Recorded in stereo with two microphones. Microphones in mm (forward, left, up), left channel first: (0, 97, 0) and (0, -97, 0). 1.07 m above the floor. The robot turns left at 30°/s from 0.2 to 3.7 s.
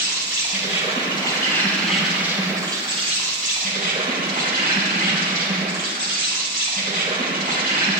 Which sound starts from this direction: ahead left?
An insect, at 0.0 s.